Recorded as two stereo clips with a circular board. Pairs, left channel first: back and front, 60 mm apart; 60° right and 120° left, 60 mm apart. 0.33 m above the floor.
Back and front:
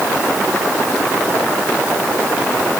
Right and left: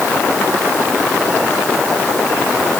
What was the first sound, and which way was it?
Only background noise.